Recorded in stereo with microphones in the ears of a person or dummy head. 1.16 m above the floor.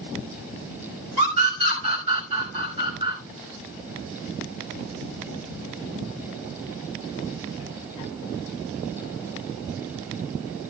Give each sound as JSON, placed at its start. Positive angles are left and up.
{"t": 1.2, "sound": "a scream", "side_deg": -35, "distance_m": 5.0}